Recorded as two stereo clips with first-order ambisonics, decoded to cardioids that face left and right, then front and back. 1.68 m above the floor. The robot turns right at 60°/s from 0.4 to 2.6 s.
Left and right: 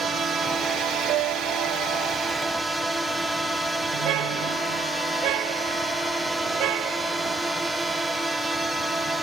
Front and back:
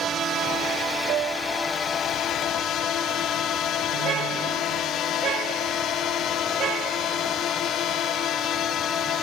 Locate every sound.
0.0 s a drone: 145° right; by 9.2 s 10° right
1.1 s a piano: 135° right; by 2.1 s 75° right
3.9 s a car horn: 125° right